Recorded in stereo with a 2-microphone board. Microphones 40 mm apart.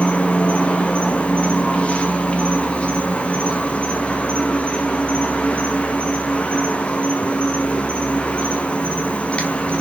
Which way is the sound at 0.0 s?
25° left (ahead or behind).